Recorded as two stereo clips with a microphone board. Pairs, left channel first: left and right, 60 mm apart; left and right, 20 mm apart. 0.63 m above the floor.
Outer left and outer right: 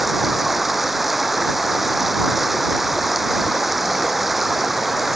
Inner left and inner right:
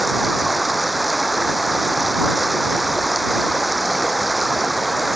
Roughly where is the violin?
I don't hear a violin.